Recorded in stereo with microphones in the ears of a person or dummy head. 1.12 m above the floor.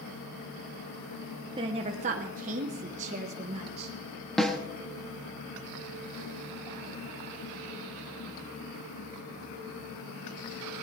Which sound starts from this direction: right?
A woman speaking, at 1.6 s.